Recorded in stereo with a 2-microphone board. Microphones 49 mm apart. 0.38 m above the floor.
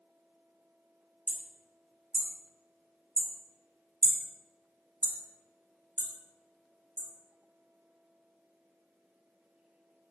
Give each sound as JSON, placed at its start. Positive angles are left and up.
{"t": 1.3, "sound": "hammering", "side_deg": -40, "distance_m": 0.5}